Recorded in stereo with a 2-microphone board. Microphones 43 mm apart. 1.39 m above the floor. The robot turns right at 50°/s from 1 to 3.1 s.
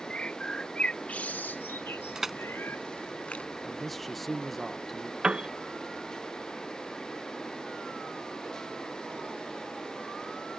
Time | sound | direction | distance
0.1 | a bird | 30° left (ahead or behind) | ?
2.1 | crushing | 15° right (ahead or behind) | ?
3.6 | a man speaking | 5° left (ahead or behind) | ?
5.2 | a piano | 25° right (ahead or behind) | ?